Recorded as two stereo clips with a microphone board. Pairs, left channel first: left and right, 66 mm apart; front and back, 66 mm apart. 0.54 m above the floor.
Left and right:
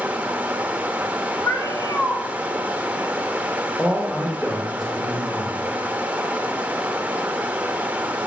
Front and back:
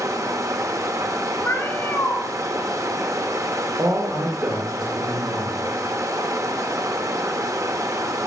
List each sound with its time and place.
0.0 s running water: 155° right, 0.9 m
1.4 s a cat meowing: 55° left, 1.7 m
3.8 s a man speaking: straight behind, 1.4 m